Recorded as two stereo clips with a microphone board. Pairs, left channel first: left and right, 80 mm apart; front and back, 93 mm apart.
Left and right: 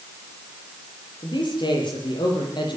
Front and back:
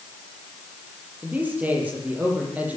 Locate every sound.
1.2 s a man speaking: 105° left, 9.5 m